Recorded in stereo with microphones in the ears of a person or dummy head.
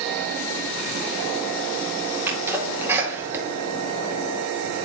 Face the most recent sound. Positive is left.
turn(degrees=-10)  # may be behind; listen again after turning